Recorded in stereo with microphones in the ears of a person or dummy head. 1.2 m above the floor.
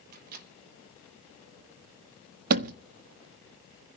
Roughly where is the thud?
Right.